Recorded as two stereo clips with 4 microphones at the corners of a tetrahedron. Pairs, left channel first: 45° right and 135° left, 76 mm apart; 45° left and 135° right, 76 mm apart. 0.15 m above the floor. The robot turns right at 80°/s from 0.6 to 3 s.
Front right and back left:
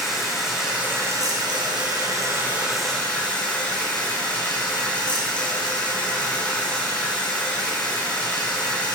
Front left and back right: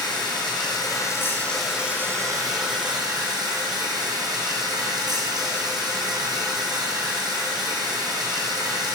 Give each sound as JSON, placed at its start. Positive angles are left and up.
{"t": 0.0, "sound": "running water", "azimuth_deg": 50, "distance_m": 1.5}